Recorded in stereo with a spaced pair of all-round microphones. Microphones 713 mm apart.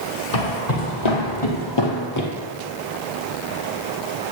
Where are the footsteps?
60° left (ahead or behind), 3.5 m; by 2.3 s 20° left (ahead or behind), 2 m.